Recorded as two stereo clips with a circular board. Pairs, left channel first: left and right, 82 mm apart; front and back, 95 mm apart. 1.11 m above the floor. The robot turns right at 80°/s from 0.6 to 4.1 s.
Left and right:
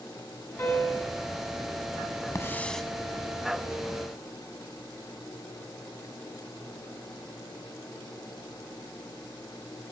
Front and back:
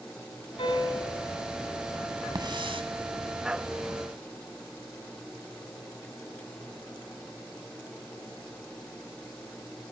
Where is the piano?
30° left, 8.5 m; by 1.2 s 75° left, 8.5 m.